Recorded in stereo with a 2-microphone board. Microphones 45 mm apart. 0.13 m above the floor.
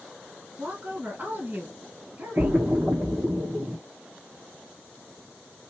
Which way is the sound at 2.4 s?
45° right (ahead or behind).